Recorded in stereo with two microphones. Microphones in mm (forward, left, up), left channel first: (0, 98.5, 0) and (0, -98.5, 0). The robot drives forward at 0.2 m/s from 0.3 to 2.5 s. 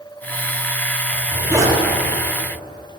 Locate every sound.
1.1 s a zipper: 15° right (ahead or behind), 1.0 m